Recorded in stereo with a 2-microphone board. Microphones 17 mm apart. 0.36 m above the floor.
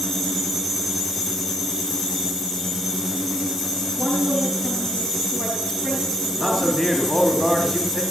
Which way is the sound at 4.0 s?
30° left (ahead or behind).